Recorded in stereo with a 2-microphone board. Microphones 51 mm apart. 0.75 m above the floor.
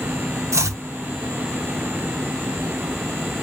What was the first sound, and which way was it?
Chopping, 75° right (ahead or behind).